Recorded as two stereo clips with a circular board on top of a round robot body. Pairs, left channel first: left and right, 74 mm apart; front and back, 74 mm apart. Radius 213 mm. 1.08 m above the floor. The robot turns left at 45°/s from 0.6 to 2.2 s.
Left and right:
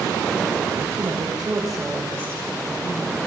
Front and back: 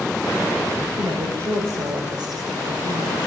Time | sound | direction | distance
1.0 | a woman speaking | 145° right | 5.5 m